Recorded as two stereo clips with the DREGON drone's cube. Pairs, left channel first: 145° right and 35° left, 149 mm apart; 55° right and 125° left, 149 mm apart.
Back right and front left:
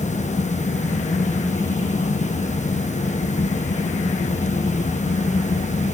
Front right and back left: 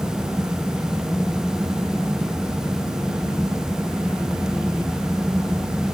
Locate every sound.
Only background noise.